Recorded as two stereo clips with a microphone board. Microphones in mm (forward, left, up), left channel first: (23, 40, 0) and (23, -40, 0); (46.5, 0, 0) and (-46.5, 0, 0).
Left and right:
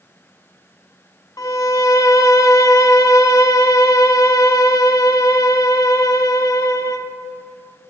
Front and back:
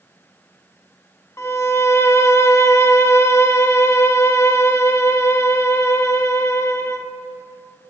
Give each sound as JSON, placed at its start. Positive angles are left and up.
{"t": 1.4, "sound": "a violin", "azimuth_deg": 55, "distance_m": 0.5}